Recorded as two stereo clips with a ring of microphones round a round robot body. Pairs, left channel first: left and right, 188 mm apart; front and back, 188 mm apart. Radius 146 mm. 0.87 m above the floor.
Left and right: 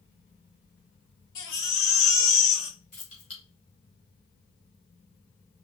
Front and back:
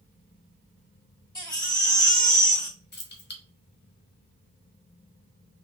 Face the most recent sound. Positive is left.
turn(degrees=30)